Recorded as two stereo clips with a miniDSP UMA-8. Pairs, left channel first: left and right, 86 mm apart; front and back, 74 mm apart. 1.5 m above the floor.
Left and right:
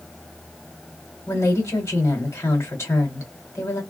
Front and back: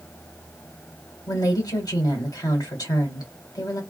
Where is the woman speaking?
35° left, 1.8 m.